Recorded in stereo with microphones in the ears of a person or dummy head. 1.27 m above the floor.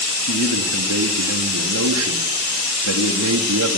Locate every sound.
0.2 s a man speaking: 85° right, 2.0 m